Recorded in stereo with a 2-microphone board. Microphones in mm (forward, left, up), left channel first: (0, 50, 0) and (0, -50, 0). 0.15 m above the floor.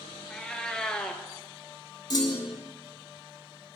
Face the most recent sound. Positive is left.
turn(degrees=40)  # may be behind; listen again after turning